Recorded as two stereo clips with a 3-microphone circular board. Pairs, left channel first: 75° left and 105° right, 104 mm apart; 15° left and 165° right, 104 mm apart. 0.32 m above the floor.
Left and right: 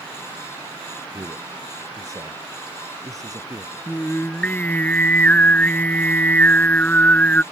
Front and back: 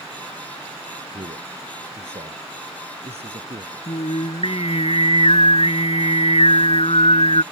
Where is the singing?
Straight ahead.